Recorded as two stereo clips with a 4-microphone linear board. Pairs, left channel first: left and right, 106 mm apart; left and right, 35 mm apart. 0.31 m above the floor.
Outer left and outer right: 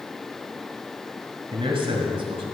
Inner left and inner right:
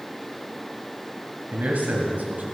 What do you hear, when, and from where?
1.5 s a man speaking: 55° right (ahead or behind), 1.9 m